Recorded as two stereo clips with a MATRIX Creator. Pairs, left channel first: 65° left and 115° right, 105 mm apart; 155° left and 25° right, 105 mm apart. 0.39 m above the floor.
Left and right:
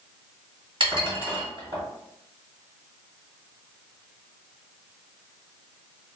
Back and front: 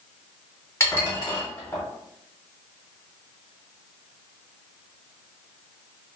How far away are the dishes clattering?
About 1.4 m.